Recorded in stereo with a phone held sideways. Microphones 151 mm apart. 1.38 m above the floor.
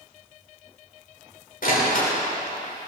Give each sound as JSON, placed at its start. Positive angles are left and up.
{"t": 1.6, "sound": "a door slam", "side_deg": 70, "distance_m": 4.0}